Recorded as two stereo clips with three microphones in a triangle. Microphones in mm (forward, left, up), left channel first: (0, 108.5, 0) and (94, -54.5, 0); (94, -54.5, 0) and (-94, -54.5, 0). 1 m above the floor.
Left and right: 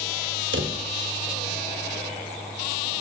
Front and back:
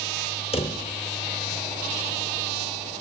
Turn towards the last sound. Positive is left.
turn(degrees=-60)